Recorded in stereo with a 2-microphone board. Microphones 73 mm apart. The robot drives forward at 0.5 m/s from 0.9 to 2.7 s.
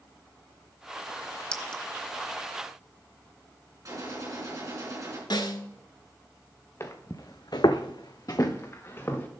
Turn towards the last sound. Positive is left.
turn(degrees=30)  # may be behind; listen again after turning